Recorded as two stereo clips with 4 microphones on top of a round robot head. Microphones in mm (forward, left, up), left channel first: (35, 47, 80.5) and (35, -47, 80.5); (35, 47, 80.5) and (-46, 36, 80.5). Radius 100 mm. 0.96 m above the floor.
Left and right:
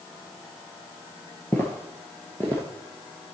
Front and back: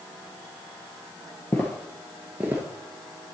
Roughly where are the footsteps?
Ahead left.